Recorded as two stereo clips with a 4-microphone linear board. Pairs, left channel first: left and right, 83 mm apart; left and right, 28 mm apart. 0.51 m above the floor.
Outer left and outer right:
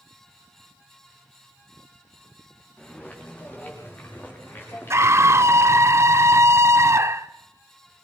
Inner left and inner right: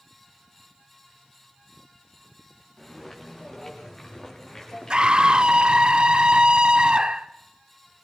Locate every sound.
2.8 s footsteps: 15° left (ahead or behind), 5 m; by 5.9 s 30° left (ahead or behind), 8 m
4.9 s a scream: 35° right (ahead or behind), 0.9 m